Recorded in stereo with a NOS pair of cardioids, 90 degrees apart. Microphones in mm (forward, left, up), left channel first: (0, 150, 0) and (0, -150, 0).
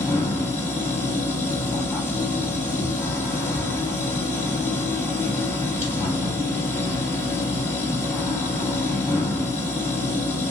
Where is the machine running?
10° left, 1.2 m.